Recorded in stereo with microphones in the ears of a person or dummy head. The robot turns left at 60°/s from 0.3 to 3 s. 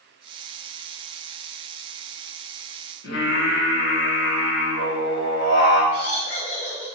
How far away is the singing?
About 1.1 m.